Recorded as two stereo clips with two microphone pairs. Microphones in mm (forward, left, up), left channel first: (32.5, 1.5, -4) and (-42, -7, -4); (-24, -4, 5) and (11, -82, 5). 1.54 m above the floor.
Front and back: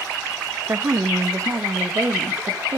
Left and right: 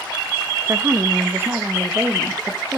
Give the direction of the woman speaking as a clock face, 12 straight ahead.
4 o'clock.